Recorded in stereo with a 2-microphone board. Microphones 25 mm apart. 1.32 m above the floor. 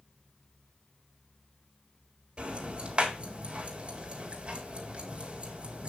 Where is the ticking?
35° right (ahead or behind), 3.5 m.